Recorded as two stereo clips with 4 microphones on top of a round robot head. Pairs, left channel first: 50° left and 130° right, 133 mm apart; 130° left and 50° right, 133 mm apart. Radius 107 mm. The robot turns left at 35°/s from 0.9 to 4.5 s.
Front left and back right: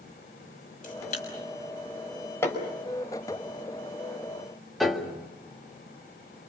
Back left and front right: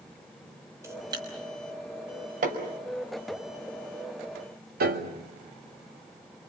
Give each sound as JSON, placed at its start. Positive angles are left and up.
{"t": 0.8, "sound": "a camera shutter", "azimuth_deg": 20, "distance_m": 6.0}
{"t": 2.4, "sound": "hammering", "azimuth_deg": -20, "distance_m": 5.0}
{"t": 4.8, "sound": "a piano", "azimuth_deg": -40, "distance_m": 2.0}